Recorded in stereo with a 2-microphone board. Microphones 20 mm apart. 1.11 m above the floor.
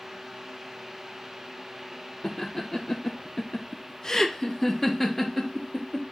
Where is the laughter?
30° left (ahead or behind), 0.9 m; by 6.0 s centre (ahead or behind), 1.9 m.